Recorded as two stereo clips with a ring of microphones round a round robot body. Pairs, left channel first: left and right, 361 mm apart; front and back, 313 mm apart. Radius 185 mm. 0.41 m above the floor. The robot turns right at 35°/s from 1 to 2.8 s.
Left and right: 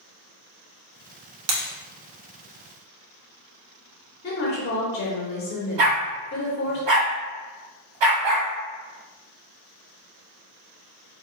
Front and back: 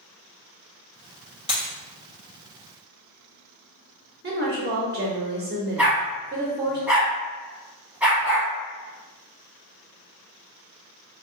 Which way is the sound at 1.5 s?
105° right.